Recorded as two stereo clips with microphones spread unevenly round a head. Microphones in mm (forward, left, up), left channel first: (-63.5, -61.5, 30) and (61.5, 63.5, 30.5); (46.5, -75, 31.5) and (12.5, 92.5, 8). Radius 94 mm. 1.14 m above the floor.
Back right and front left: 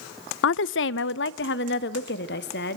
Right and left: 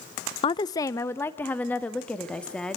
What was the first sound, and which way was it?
A woman speaking, 145° right.